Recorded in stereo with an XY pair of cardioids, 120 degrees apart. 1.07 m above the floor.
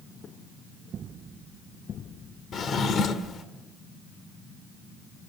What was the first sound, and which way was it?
A drawer, 50° left.